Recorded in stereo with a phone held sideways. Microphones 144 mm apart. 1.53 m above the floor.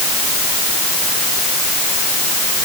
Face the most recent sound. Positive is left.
No sound to turn to.